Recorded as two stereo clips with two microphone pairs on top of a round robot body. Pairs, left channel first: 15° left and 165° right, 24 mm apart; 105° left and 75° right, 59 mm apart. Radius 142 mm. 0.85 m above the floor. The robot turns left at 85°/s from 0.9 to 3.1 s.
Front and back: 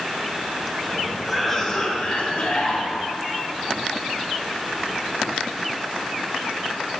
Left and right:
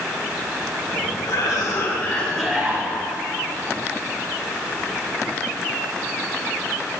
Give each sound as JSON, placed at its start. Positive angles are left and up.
{"t": 1.2, "sound": "a cough", "azimuth_deg": 115, "distance_m": 3.5}